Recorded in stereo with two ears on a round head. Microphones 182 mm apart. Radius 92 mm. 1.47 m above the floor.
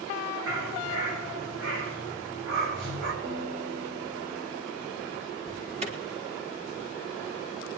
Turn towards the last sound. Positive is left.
turn(degrees=-35)  # may be behind; listen again after turning